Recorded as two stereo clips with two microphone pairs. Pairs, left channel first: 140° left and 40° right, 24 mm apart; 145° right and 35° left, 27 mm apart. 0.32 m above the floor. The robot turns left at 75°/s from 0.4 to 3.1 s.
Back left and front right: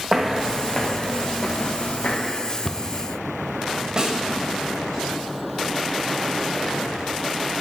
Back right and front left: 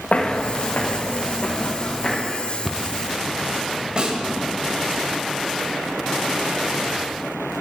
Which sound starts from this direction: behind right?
Footsteps, at 0.1 s.